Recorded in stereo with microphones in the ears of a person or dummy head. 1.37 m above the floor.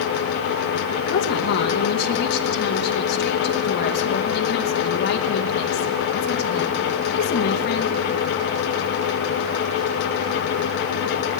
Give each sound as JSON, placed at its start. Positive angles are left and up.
{"t": 1.1, "sound": "a woman speaking", "side_deg": 60, "distance_m": 1.0}